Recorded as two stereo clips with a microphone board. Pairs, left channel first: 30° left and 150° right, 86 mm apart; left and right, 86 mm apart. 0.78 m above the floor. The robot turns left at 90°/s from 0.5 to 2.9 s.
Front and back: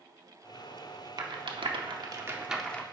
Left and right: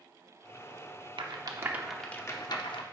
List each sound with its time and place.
1.2 s a rattle: 110° right, 0.8 m; by 2.8 s 100° left, 0.8 m